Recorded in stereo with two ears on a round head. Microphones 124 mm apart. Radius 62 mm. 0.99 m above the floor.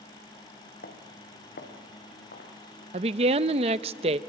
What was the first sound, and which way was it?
Footsteps, 75° left (ahead or behind).